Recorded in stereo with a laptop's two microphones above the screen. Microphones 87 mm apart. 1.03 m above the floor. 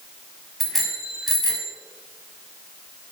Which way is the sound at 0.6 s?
Centre (ahead or behind).